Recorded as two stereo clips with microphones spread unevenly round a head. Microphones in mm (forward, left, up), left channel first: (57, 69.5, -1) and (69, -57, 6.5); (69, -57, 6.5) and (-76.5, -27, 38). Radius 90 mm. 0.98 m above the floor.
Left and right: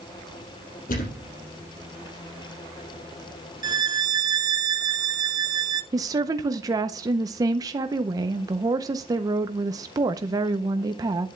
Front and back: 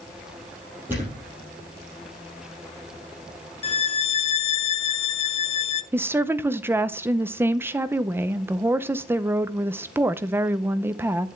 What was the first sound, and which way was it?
A thud, 90° left.